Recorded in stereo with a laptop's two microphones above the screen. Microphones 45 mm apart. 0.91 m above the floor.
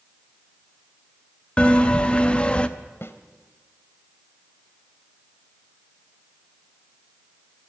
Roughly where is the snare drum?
Left.